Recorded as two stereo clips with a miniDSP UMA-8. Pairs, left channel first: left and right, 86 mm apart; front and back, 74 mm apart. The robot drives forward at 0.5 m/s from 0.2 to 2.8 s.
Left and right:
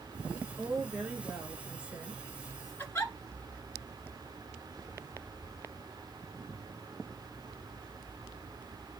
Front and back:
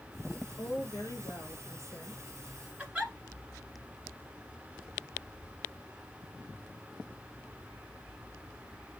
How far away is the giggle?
About 1.7 m.